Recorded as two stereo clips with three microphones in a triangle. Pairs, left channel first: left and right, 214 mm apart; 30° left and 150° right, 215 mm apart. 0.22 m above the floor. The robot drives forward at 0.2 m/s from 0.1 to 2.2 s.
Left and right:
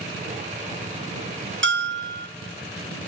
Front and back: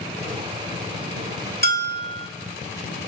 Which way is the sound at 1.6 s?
110° right.